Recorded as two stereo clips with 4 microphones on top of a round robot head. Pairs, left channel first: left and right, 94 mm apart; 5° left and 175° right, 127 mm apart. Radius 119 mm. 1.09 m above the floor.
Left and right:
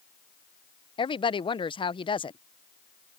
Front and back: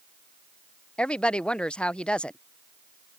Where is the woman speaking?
85° left.